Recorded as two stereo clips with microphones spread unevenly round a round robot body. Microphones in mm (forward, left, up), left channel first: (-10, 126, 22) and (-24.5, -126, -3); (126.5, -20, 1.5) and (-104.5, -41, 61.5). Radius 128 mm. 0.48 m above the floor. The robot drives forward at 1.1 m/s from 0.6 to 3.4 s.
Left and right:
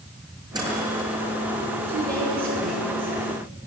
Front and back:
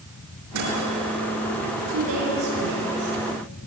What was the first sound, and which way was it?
A microwave, 170° right.